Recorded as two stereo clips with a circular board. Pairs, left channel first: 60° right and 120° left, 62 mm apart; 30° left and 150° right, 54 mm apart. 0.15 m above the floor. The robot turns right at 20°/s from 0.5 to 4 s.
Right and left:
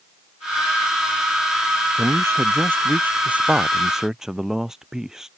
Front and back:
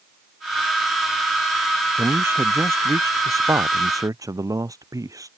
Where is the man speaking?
160° left; by 5.3 s 160° right.